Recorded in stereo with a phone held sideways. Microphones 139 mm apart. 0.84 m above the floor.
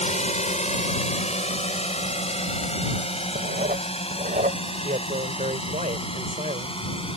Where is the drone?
55° left (ahead or behind); by 7.2 s 40° left (ahead or behind).